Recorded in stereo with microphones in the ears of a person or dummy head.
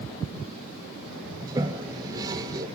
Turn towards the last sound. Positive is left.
turn(degrees=-20)  # may be behind; listen again after turning